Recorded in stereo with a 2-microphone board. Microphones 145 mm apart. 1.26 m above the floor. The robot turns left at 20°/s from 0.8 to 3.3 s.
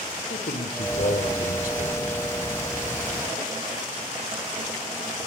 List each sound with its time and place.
0.3 s a man speaking: 85° left, 3.5 m; by 2.2 s 60° left (ahead or behind), 3.5 m